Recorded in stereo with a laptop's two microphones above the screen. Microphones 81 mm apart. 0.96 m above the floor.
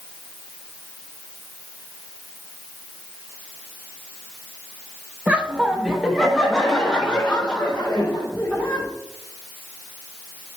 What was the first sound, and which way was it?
Laughter, 20° right (ahead or behind).